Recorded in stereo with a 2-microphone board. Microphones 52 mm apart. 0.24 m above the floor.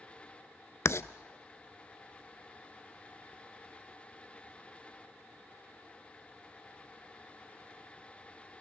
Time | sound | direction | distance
0.8 | writing | 65° left (ahead or behind) | 0.5 m